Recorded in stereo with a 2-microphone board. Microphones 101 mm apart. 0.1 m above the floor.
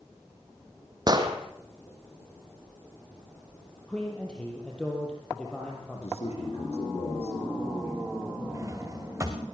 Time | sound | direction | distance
1.1 | an explosion | 40° right (ahead or behind) | 2.5 m
3.9 | a man speaking | 10° left (ahead or behind) | 3.5 m
5.9 | a man speaking | 75° left (ahead or behind) | 4 m
8.5 | a drawer | 25° right (ahead or behind) | 3 m